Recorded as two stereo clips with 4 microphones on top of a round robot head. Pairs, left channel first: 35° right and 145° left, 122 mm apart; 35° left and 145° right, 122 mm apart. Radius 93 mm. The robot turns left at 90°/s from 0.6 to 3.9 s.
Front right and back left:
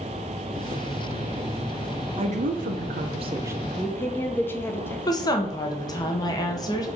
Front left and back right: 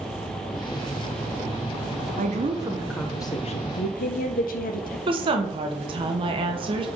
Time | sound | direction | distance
2.2 | a woman speaking | 165° right | 0.9 m
5.1 | a woman speaking | 95° right | 1.3 m